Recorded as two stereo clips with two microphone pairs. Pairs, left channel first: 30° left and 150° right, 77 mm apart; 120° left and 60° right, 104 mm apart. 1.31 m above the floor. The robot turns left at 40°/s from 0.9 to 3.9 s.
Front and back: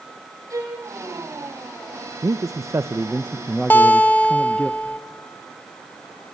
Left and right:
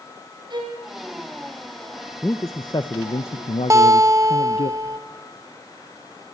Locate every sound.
0.5 s a violin: 105° right, 5.5 m
2.2 s a man speaking: 175° right, 0.8 m; by 4.7 s 115° left, 0.8 m
3.7 s a guitar: 20° right, 1.3 m; by 5.0 s 30° right, 1.3 m